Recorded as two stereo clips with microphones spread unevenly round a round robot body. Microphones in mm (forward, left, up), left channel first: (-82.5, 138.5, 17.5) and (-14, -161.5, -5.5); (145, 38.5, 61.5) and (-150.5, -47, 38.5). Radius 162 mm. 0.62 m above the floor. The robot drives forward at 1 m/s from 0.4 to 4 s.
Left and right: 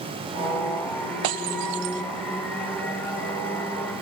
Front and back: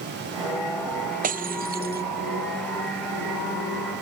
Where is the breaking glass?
95° right; by 2.0 s 100° right.